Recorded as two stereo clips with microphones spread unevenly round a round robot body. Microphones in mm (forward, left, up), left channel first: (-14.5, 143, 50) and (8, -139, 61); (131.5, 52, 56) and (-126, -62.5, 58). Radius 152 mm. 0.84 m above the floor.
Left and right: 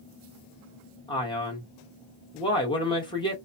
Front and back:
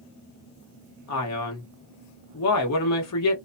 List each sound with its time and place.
1.1 s a man speaking: 25° left, 1.2 m